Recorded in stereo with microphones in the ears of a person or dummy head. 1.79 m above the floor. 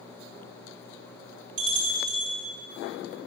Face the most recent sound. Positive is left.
turn(degrees=-45)  # may be behind; listen again after turning